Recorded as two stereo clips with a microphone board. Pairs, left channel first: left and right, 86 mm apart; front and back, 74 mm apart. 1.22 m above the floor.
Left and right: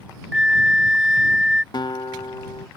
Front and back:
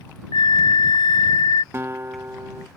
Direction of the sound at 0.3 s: 5° right.